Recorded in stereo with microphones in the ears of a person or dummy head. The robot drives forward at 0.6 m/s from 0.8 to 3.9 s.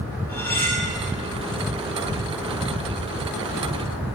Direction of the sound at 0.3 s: 15° left (ahead or behind).